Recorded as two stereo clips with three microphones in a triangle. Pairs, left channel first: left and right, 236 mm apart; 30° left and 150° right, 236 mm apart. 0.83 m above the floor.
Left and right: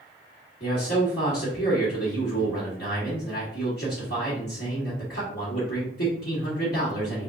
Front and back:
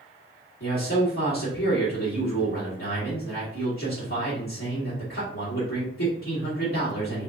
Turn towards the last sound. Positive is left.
turn(degrees=50)